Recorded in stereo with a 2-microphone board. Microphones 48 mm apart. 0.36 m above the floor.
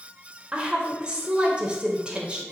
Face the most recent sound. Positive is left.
turn(degrees=-25)  # may be behind; listen again after turning